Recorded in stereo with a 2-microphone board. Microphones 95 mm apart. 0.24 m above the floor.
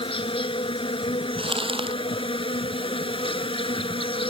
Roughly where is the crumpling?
Right.